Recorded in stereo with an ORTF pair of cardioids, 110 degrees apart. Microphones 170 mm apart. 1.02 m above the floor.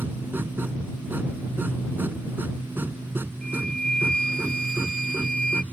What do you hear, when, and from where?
0.0 s a machine running: 10° right
3.4 s a flute: 50° right